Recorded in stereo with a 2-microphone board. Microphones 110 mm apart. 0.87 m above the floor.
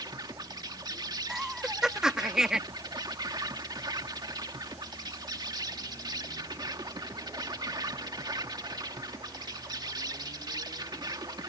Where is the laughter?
5° right (ahead or behind).